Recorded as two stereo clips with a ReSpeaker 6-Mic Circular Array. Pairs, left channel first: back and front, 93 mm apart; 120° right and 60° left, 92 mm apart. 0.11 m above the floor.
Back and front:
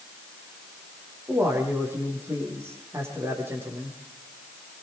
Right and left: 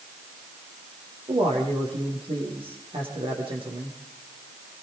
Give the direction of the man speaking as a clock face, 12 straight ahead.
10 o'clock.